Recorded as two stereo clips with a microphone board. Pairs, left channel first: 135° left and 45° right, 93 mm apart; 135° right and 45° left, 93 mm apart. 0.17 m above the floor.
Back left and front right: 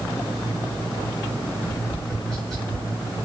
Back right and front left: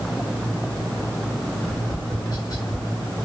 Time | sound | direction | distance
1.6 | tapping | 140° right | 1.9 m